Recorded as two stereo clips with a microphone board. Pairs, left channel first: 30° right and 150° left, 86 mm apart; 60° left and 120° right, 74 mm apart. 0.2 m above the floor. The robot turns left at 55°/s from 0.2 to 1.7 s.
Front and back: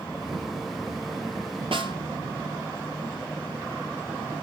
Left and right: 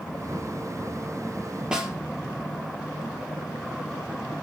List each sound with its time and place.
1.7 s a snare drum: 160° left, 3 m